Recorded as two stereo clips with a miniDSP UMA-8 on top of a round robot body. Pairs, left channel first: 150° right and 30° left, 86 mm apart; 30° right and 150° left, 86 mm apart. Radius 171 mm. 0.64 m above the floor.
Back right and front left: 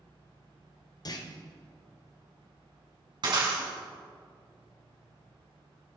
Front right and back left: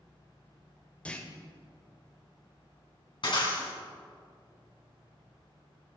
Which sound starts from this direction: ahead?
Breaking glass, at 3.2 s.